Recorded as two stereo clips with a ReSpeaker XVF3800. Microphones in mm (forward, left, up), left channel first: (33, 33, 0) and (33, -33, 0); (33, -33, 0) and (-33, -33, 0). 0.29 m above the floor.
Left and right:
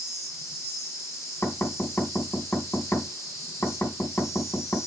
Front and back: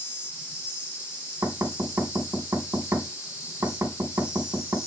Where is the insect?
50° left, 4 m.